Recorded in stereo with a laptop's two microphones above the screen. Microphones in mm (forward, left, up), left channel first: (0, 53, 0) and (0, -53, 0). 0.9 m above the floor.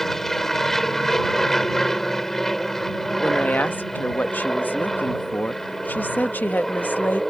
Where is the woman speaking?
15° left (ahead or behind).